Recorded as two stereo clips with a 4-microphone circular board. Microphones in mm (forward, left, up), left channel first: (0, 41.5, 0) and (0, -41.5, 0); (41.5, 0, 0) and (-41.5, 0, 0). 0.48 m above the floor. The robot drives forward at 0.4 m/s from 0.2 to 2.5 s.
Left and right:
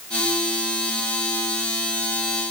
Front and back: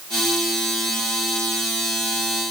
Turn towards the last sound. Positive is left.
No sound to turn to.